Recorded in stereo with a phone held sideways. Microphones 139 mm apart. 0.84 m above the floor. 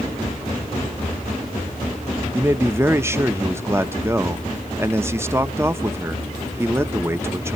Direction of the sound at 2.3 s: 15° right (ahead or behind).